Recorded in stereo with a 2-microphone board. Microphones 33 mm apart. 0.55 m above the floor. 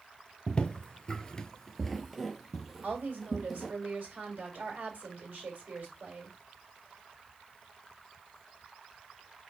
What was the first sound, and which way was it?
Footsteps, 30° left (ahead or behind).